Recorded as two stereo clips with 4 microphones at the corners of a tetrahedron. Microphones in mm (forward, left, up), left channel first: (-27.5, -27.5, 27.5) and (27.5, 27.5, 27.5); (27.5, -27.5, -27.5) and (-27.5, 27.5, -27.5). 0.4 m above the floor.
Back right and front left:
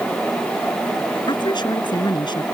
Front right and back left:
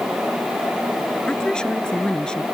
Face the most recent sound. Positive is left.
turn(degrees=-125)